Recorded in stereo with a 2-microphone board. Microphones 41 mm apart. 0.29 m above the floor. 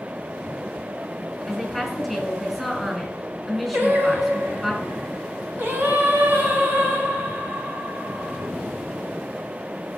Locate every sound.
1.5 s a woman speaking: centre (ahead or behind), 5.5 m
3.7 s singing: 55° right (ahead or behind), 1.7 m